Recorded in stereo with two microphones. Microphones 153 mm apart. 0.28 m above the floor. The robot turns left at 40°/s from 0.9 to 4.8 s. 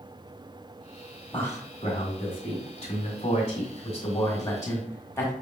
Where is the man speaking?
10° left (ahead or behind), 1.5 m; by 5.3 s 20° left (ahead or behind), 1.5 m.